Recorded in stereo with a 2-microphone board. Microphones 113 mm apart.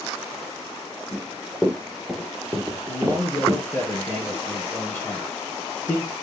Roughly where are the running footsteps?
Centre.